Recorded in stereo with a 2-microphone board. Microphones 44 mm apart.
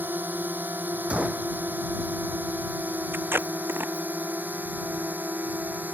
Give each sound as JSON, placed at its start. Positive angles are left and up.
{"t": 0.0, "sound": "a drone", "side_deg": -45}
{"t": 1.1, "sound": "a gunshot", "side_deg": -25}
{"t": 3.1, "sound": "tape being pulled", "side_deg": -55}